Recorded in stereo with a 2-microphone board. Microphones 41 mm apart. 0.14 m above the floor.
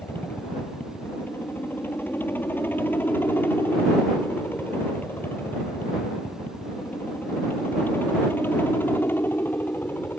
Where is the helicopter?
55° left (ahead or behind); by 10.2 s 60° left (ahead or behind).